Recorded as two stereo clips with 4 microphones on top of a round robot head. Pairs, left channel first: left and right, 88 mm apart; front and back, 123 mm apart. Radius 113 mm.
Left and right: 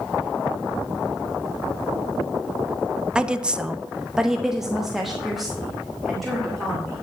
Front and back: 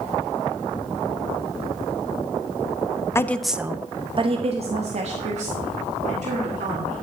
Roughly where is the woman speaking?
Ahead right.